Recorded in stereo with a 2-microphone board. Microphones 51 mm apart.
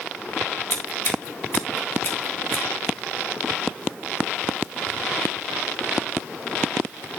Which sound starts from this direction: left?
Scissors, at 0.7 s.